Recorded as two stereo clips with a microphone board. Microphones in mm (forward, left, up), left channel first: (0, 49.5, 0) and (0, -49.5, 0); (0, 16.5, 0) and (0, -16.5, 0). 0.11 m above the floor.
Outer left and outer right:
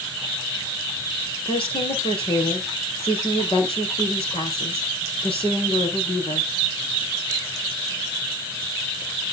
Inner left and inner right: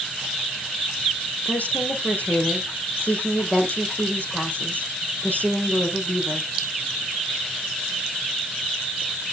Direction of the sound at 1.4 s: 65° left (ahead or behind).